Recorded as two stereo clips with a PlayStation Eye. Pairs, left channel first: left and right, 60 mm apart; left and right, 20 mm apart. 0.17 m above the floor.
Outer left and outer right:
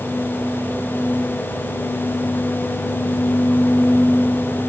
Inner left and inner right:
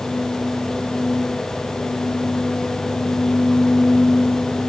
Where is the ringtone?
No ringtone in this recording.